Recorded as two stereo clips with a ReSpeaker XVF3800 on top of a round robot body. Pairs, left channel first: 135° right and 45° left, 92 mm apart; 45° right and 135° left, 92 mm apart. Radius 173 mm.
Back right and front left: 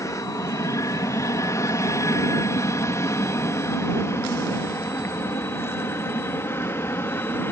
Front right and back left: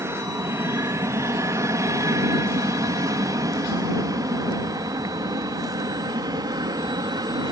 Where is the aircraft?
175° right; by 7.5 s 165° left.